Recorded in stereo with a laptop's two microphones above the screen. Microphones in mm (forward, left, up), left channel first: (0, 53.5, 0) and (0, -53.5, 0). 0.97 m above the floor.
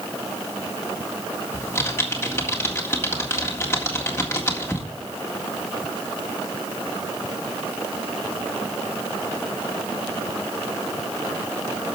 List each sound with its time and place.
1.5 s typing on a keyboard: 25° left (ahead or behind), 1.8 m